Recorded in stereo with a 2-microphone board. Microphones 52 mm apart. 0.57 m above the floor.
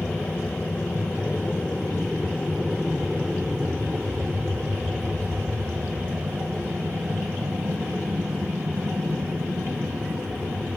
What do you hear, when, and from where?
0.0 s an aircraft: 45° left (ahead or behind); by 10.8 s 70° right (ahead or behind)